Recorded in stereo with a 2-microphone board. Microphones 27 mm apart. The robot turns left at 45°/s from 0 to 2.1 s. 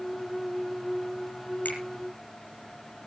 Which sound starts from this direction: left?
A finger snap, at 1.6 s.